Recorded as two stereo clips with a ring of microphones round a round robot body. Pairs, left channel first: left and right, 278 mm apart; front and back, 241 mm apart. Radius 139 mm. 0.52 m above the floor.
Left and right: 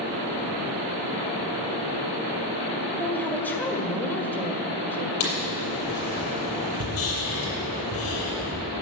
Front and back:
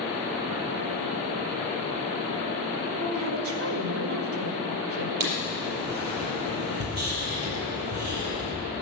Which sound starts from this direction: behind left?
Writing, at 5.2 s.